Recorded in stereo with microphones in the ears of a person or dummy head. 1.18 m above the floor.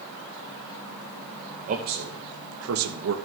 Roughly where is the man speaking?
Right.